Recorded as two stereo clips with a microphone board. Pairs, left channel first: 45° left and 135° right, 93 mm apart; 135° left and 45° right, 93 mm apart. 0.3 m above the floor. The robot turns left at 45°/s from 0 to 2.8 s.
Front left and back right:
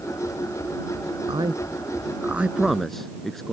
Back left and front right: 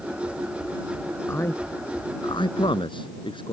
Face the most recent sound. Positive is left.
turn(degrees=130)